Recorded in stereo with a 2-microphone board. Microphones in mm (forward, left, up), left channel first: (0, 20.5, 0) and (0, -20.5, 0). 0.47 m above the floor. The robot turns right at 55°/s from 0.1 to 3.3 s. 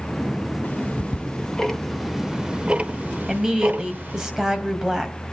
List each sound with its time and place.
0.6 s ticking: 50° left (ahead or behind), 1.3 m; by 4.3 s 50° right (ahead or behind), 1.3 m
3.3 s a woman speaking: 15° right (ahead or behind), 2.5 m